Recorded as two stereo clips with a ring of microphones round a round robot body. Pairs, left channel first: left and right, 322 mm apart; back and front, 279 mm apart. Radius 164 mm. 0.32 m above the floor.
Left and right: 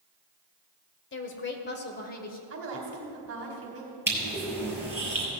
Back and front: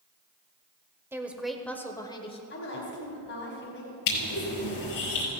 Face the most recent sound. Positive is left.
turn(degrees=-175)